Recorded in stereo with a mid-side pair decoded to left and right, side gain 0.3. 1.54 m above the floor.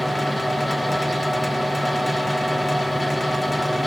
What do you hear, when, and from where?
0.0 s a fan: 15° left, 1.2 m